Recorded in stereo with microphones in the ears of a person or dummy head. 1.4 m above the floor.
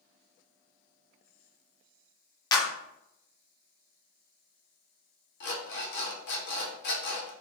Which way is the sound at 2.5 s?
30° left (ahead or behind).